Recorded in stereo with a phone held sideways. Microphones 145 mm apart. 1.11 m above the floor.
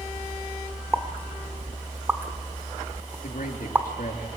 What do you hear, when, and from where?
0.9 s a pop: 15° right (ahead or behind), 1.5 m
3.2 s a man speaking: 70° left (ahead or behind), 2.5 m